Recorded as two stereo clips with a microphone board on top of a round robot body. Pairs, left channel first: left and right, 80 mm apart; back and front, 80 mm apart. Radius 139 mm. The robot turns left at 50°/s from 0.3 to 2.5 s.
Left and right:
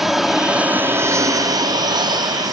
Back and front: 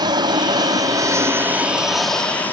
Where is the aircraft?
5° right; by 2.5 s 115° right.